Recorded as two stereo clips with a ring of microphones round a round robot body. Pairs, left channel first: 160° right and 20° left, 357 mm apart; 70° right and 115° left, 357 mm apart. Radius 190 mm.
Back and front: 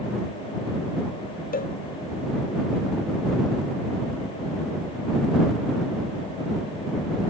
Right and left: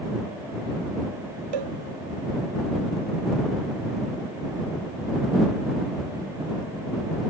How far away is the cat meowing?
I don't hear a cat meowing.